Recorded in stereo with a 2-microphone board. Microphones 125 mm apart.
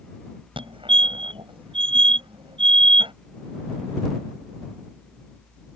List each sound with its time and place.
0.6 s a fire alarm: 45° right (ahead or behind)